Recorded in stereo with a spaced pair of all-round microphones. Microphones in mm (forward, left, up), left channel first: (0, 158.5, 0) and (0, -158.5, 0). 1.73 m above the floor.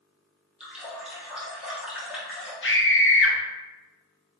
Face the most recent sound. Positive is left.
turn(degrees=45)  # may be behind; listen again after turning